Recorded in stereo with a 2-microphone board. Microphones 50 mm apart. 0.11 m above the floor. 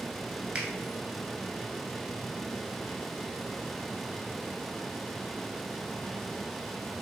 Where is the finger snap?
25° right (ahead or behind), 0.9 m.